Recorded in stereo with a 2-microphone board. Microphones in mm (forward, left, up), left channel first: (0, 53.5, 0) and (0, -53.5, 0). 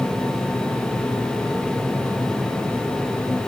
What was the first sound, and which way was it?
Only background noise.